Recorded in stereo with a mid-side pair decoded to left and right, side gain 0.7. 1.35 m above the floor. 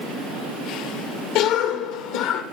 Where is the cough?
70° left, 1.7 m.